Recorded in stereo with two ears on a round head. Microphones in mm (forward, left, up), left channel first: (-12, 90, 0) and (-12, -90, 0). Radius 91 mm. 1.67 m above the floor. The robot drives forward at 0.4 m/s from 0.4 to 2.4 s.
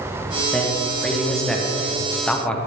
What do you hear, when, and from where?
0.5 s a man speaking: centre (ahead or behind), 1.7 m; by 2.6 s 5° left (ahead or behind), 0.9 m